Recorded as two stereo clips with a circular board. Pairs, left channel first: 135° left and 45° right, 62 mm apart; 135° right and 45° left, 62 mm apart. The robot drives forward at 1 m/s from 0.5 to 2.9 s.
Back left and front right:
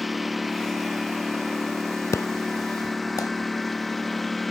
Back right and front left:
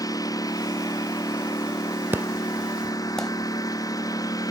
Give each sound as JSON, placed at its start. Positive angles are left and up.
{"t": 0.0, "sound": "a lawn mower", "azimuth_deg": -135}
{"t": 2.1, "sound": "an explosion", "azimuth_deg": 95}